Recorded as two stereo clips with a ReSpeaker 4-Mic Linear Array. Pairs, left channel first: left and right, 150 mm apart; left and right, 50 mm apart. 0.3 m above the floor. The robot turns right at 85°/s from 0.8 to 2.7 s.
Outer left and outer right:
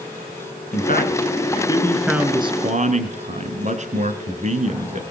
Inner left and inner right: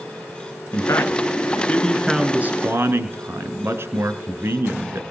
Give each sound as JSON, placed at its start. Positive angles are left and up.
{"t": 0.7, "sound": "a man speaking", "azimuth_deg": 75, "distance_m": 3.0}